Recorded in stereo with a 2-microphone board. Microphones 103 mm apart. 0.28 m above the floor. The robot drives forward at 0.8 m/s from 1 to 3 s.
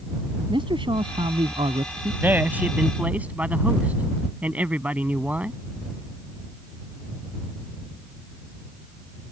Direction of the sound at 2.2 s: 20° right (ahead or behind).